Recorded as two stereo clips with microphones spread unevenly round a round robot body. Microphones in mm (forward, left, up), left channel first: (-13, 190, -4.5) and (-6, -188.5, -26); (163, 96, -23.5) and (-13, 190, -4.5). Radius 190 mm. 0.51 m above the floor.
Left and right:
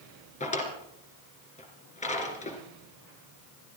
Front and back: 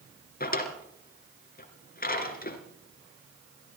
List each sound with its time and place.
0.4 s a drawer: 20° left, 2.5 m